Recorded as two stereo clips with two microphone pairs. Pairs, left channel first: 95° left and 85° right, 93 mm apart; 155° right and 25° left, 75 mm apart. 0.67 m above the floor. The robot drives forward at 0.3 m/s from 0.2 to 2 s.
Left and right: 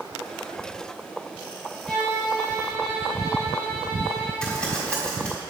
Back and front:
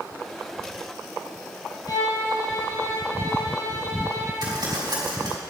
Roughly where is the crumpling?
Ahead.